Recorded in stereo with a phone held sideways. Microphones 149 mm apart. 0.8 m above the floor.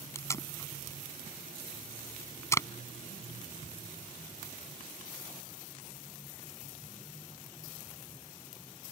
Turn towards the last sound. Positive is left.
turn(degrees=20)  # may be behind; listen again after turning